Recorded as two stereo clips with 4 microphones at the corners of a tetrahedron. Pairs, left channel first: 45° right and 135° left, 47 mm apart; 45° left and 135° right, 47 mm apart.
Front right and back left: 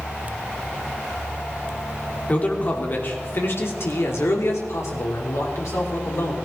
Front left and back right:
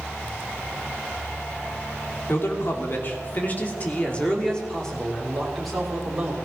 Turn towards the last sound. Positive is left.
turn(degrees=-50)